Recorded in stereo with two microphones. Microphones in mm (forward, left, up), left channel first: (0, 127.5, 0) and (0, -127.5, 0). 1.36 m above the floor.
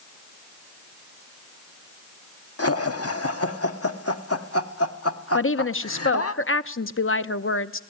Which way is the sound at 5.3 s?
55° left (ahead or behind).